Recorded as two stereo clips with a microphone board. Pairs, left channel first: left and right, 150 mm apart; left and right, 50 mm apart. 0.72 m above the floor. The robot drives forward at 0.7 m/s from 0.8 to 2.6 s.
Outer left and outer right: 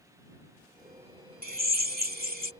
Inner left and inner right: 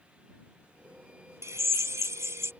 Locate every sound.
1.4 s a drill: 75° right (ahead or behind)